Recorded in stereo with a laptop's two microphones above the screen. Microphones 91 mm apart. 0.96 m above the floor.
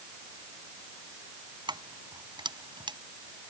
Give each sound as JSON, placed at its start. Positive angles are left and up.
{"t": 1.7, "sound": "keys jangling", "side_deg": -55}